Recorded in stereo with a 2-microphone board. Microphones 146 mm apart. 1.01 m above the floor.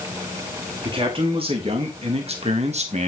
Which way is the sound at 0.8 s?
40° right (ahead or behind).